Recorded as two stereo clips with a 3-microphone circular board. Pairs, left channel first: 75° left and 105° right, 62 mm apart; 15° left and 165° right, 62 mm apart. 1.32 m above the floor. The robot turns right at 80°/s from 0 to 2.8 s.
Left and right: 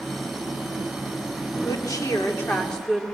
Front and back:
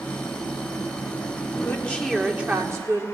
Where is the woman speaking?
65° left, 3 m; by 3.0 s 160° left, 3 m.